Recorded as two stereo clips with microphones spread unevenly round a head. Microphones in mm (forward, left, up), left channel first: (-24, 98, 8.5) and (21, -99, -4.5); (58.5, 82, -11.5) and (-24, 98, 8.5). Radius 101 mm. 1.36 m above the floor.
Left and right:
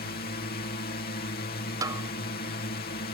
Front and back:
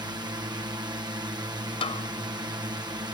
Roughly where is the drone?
Behind left.